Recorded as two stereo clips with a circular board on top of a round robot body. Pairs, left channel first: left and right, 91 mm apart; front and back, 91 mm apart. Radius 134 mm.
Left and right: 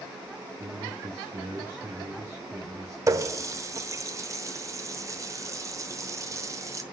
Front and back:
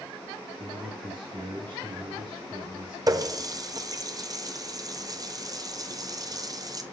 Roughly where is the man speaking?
Behind right.